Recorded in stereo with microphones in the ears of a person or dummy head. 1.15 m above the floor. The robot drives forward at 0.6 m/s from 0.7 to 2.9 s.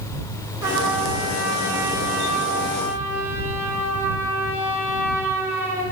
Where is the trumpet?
15° right (ahead or behind), 7.5 m; by 5.8 s 10° right (ahead or behind), 8.5 m.